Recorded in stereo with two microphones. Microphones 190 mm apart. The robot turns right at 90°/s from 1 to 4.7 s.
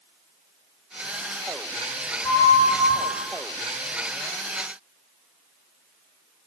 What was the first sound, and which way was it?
A flute, straight ahead.